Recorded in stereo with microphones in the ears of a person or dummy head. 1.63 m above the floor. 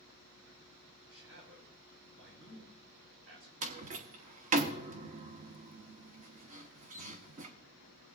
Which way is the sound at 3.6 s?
40° right (ahead or behind).